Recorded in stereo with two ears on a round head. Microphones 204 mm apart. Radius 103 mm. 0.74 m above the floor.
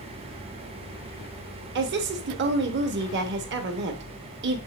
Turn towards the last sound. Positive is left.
turn(degrees=-50)  # may be behind; listen again after turning